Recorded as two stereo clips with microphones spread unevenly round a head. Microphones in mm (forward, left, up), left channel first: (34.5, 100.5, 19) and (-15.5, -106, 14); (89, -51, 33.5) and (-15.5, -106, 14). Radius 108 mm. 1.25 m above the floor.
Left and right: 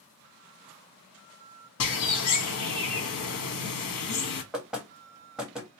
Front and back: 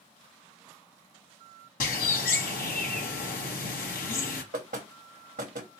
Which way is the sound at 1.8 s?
55° left.